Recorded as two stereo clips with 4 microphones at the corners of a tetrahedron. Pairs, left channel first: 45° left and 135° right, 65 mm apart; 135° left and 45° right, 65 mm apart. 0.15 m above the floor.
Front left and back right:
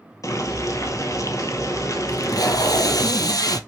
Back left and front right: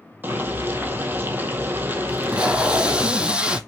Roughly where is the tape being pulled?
Ahead left.